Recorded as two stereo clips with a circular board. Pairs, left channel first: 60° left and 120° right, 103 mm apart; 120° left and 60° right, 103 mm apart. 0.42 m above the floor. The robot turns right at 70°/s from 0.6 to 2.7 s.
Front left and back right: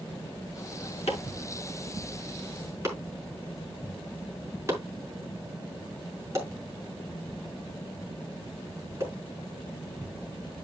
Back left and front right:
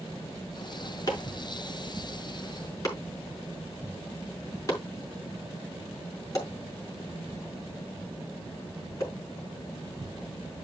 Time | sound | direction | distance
1.1 | chopping | 65° left | 5 m